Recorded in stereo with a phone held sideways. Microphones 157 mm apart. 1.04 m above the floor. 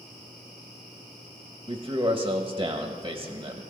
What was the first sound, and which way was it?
A man speaking, 25° right (ahead or behind).